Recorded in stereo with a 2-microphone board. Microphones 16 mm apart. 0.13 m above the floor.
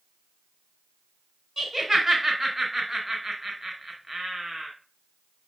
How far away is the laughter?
About 1.1 m.